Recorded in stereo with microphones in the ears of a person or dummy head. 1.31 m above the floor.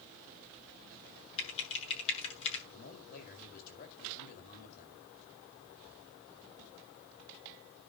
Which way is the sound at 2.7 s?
50° left (ahead or behind).